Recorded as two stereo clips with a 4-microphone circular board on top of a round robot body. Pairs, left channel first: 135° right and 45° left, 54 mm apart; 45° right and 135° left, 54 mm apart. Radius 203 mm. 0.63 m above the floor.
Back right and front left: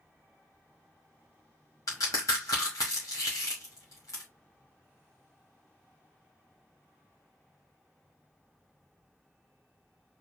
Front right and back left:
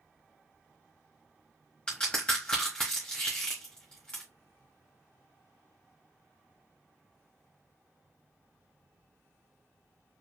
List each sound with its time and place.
1.9 s a crack: 115° right, 0.9 m